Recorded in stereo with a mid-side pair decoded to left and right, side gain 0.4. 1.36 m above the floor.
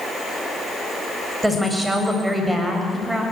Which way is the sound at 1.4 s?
10° right.